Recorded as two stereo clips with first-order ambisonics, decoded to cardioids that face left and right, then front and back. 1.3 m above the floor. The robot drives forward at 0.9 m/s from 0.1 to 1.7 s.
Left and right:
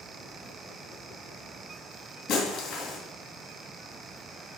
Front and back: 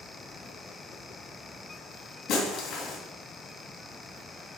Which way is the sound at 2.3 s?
50° left.